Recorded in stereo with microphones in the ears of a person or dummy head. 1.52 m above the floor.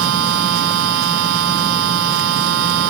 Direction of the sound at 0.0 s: 90° right.